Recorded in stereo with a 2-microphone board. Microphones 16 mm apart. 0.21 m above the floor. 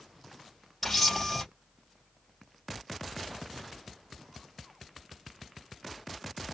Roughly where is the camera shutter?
Centre.